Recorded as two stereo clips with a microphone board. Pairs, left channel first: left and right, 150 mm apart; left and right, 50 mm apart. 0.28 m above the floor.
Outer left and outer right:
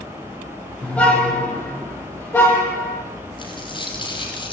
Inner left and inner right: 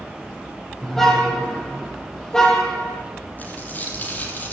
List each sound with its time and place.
0.8 s a car horn: 10° left (ahead or behind), 6 m; by 3.0 s 20° left (ahead or behind), 5.5 m
3.4 s a dropped coin: 35° left (ahead or behind), 5 m